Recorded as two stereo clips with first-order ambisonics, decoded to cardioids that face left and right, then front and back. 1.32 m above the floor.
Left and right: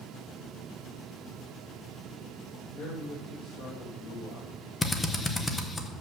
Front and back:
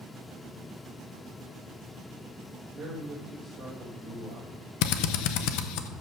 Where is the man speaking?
110° left, 2 m.